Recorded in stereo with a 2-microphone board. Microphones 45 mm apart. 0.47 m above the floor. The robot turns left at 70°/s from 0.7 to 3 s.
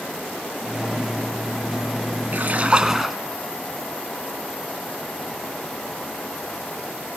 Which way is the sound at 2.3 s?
125° right.